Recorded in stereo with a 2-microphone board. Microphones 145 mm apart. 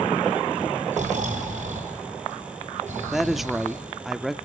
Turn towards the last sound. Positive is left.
turn(degrees=0)  # may be behind; listen again after turning